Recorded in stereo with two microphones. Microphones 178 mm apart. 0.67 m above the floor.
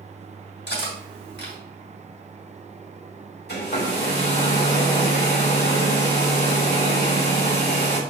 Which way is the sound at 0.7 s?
85° left.